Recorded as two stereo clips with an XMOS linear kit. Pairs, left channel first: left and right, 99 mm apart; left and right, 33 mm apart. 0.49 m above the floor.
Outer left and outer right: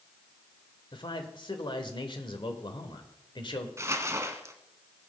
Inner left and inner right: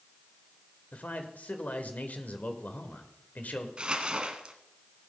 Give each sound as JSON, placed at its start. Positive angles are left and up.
{"t": 0.9, "sound": "a man speaking", "side_deg": 55, "distance_m": 1.6}
{"t": 3.8, "sound": "crumpling", "side_deg": -30, "distance_m": 1.1}